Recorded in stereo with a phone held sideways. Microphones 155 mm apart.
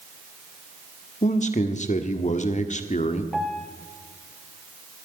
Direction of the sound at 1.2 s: 50° left (ahead or behind).